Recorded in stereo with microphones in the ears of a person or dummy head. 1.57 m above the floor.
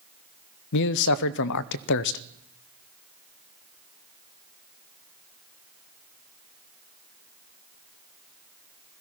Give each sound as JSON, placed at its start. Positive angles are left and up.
{"t": 0.7, "sound": "a man speaking", "side_deg": 65, "distance_m": 0.6}